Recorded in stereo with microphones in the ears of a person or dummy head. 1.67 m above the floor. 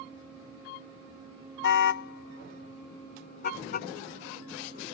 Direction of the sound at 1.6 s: 60° left (ahead or behind).